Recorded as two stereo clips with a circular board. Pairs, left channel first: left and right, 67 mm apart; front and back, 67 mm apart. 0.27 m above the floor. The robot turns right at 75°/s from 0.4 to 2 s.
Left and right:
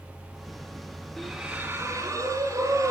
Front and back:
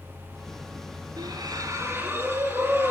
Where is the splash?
175° left, 3.5 m; by 2.9 s 120° right, 3.5 m.